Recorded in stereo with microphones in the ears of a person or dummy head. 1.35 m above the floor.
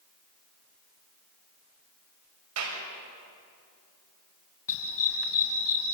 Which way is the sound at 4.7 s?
65° left (ahead or behind).